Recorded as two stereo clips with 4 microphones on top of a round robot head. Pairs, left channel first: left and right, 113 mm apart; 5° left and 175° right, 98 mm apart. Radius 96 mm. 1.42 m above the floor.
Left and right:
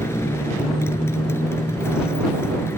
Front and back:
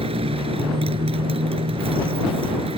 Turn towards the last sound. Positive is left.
turn(degrees=165)